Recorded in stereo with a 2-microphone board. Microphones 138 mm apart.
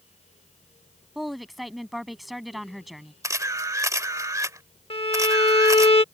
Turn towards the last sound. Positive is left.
turn(degrees=45)  # may be behind; listen again after turning